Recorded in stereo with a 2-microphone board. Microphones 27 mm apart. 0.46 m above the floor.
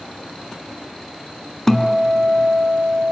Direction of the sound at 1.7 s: 20° left (ahead or behind).